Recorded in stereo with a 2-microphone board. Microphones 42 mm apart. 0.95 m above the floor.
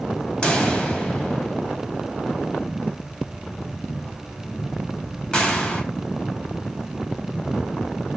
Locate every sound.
0.4 s a pop: 25° left (ahead or behind), 0.7 m